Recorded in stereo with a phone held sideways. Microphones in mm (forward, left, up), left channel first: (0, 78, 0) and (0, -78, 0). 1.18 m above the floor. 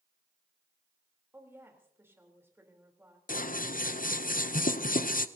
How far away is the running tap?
I don't hear a running tap.